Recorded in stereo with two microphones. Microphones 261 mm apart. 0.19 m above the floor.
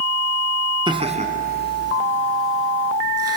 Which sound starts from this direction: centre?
Laughter, at 0.9 s.